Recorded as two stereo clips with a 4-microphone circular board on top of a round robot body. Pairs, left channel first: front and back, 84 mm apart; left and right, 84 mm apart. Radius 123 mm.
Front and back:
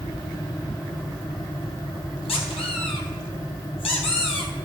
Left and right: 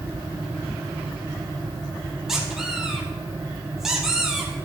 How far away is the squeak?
About 1.8 m.